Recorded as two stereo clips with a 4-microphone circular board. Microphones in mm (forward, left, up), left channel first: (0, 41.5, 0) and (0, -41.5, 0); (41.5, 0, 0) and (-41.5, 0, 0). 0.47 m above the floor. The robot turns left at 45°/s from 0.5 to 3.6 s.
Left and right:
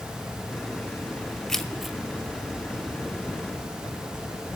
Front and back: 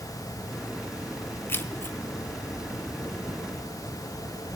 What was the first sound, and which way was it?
Keys jangling, 10° left.